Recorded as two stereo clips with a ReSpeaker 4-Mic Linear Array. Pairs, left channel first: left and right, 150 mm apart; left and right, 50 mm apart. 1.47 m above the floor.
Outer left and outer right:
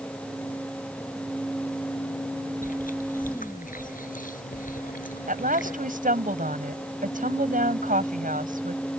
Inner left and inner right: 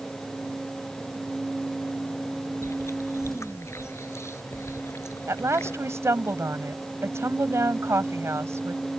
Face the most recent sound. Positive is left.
turn(degrees=-65)  # may be behind; listen again after turning